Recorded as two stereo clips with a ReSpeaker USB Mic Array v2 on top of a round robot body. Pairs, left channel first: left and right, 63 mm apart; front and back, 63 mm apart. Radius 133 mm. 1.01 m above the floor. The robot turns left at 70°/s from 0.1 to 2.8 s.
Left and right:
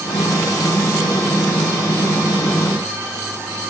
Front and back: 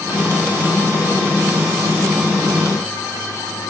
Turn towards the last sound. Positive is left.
No sound to turn to.